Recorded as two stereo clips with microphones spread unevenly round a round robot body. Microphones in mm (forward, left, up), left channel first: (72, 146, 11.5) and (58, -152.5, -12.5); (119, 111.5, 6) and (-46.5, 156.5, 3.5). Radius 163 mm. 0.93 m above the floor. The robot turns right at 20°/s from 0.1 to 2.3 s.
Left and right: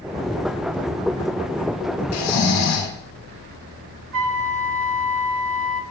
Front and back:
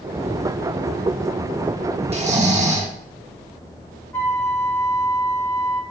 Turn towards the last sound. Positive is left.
turn(degrees=-90)